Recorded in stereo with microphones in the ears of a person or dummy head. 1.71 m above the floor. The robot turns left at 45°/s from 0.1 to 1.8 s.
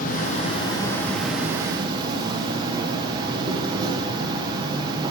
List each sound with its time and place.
0.0 s an insect: 55° left, 1.2 m; by 5.1 s 25° right, 1.2 m